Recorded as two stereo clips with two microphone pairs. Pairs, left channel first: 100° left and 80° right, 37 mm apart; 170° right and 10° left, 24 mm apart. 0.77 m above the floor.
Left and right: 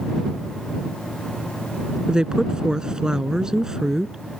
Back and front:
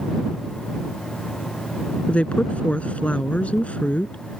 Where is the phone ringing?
I don't hear a phone ringing.